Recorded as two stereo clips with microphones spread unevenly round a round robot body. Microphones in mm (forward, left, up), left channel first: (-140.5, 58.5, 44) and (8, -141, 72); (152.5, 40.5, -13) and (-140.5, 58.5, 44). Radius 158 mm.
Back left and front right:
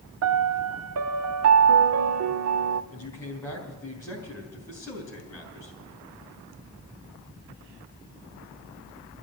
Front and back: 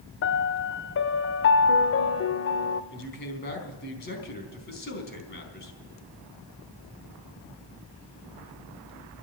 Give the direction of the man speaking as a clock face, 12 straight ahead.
10 o'clock.